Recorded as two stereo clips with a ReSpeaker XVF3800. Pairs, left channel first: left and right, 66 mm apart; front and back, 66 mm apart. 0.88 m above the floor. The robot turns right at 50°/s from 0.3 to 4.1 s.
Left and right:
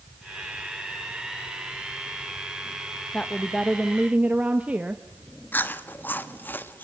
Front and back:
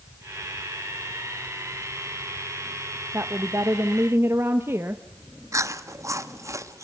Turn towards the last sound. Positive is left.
turn(degrees=150)